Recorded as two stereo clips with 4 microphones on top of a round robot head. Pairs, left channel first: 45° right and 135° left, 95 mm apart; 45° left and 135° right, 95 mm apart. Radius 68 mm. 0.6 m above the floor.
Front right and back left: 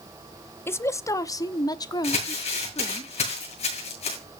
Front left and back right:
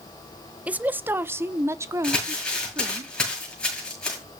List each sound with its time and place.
0.7 s a woman speaking: 75° right, 0.8 m; by 3.0 s 80° right, 1.7 m
2.0 s crumpling: 35° right, 8.5 m